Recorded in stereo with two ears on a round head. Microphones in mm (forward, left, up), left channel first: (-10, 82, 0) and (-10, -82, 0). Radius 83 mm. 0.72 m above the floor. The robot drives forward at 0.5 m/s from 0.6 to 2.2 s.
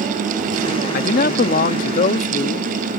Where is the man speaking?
50° left (ahead or behind); by 2.7 s 40° left (ahead or behind).